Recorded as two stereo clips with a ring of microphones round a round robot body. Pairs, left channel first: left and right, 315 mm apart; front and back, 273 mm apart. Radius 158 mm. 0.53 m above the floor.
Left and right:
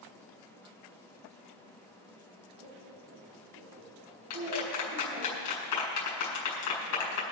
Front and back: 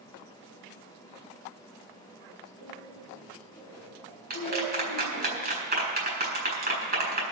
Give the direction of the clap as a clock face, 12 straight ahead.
8 o'clock.